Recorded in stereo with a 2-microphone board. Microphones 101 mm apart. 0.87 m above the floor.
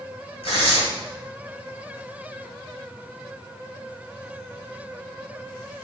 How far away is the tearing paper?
About 3 m.